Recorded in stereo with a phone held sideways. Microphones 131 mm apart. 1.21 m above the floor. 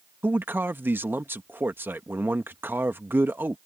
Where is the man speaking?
15° right (ahead or behind).